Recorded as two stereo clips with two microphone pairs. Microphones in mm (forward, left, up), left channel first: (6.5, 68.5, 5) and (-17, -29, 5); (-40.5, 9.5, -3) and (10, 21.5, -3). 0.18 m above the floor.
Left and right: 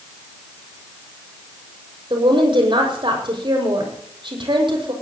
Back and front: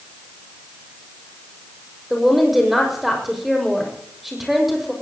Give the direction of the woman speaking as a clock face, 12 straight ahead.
2 o'clock.